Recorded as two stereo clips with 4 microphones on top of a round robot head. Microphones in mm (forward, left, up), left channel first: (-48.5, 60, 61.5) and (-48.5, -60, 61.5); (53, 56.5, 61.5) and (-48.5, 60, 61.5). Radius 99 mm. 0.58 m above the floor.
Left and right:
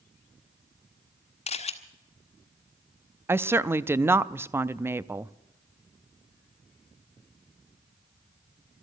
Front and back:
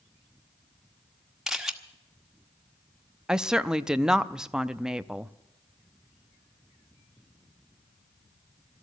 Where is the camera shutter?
90° left, 1.5 m.